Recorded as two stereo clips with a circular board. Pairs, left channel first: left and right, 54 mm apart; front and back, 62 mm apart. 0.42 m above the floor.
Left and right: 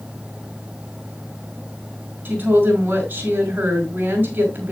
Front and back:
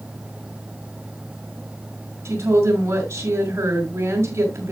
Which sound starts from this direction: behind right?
A woman speaking, at 2.2 s.